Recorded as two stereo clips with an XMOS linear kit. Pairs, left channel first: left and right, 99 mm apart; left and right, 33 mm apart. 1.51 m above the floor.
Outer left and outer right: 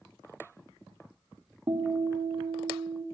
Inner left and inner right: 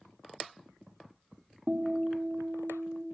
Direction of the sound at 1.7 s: 55° right (ahead or behind).